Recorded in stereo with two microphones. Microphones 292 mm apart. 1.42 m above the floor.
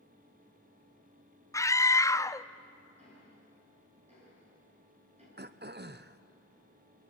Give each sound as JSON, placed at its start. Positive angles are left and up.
{"t": 1.5, "sound": "a scream", "side_deg": 10, "distance_m": 0.5}
{"t": 3.0, "sound": "ticking", "side_deg": -25, "distance_m": 9.0}
{"t": 5.4, "sound": "throat clearing", "side_deg": -35, "distance_m": 0.6}